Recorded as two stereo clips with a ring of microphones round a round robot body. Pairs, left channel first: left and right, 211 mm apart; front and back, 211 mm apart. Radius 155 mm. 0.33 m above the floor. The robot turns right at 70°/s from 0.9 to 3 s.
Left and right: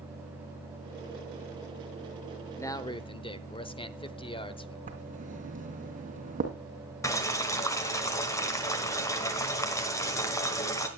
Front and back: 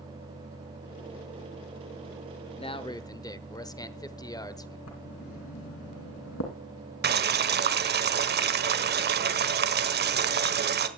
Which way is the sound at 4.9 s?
35° right.